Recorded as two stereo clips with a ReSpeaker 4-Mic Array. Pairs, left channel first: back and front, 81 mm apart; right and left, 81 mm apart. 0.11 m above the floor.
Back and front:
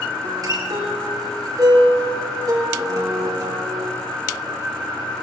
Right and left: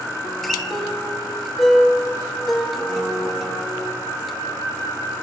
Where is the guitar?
5° right, 1.8 m.